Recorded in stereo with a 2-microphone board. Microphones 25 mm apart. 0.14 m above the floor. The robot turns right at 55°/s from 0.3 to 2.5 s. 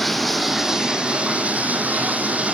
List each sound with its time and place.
0.0 s running water: 175° left, 2.5 m; by 2.5 s 60° right, 2.5 m